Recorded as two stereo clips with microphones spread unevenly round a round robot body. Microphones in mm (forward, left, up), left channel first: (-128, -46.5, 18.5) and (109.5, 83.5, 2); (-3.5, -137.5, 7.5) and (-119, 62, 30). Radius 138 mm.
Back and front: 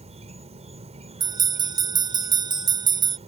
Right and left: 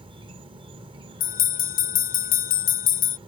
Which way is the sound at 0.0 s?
60° left.